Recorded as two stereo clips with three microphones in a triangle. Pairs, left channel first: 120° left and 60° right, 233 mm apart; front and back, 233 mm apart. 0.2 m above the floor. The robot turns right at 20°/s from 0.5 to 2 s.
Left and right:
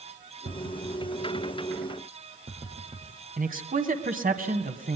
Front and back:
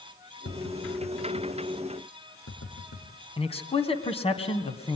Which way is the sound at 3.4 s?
45° right.